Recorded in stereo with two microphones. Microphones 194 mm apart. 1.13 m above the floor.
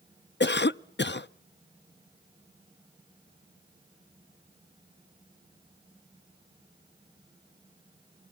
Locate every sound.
0.4 s a cough: 65° left (ahead or behind), 0.5 m